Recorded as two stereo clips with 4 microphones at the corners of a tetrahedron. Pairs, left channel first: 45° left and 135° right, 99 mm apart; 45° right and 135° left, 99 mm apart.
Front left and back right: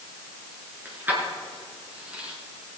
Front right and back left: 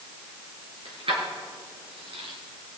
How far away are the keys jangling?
About 4.5 m.